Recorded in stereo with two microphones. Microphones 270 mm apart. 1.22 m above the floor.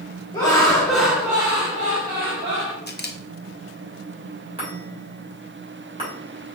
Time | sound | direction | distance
0.3 | laughter | 15° left (ahead or behind) | 1.3 m
2.9 | a camera shutter | 40° left (ahead or behind) | 0.6 m
4.6 | a chime | 20° right (ahead or behind) | 2.5 m